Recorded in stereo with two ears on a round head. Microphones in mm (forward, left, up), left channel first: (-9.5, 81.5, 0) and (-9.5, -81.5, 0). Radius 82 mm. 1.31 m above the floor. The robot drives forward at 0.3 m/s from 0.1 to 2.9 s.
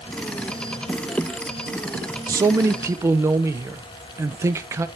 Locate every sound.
2.3 s a man speaking: 20° right (ahead or behind), 0.6 m; by 4.9 s 15° right (ahead or behind), 0.8 m